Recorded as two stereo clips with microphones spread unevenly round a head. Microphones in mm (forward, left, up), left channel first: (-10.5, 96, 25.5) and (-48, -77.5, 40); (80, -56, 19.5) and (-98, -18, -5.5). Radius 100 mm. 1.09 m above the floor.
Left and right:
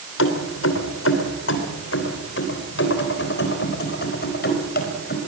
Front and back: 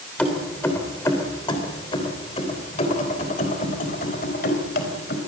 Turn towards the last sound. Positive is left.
turn(degrees=35)